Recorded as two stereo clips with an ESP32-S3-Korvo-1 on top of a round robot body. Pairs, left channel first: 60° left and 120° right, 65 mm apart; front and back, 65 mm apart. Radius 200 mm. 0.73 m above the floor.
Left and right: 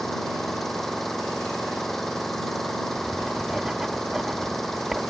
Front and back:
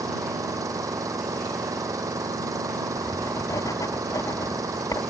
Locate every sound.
0.0 s an engine running: 145° left
3.0 s writing: 35° right